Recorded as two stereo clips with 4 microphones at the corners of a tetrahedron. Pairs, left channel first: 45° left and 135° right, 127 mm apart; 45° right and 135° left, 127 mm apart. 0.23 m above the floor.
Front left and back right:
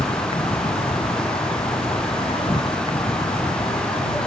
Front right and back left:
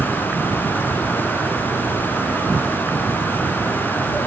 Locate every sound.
0.0 s an insect: 65° left